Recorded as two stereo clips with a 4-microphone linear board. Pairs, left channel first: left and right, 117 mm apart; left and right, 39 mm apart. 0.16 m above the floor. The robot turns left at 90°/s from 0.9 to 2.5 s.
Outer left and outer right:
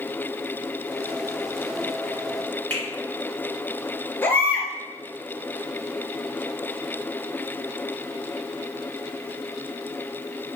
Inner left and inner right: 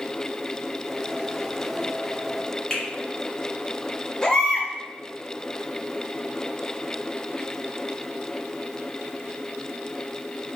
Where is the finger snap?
10° left (ahead or behind), 1.9 m.